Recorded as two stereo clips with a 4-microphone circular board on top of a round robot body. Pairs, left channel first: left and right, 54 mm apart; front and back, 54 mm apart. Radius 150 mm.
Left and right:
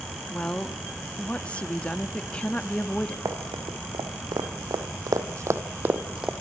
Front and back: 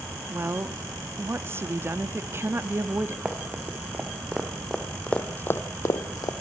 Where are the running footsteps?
110° right, 3.5 m; by 6.3 s 15° right, 1.9 m.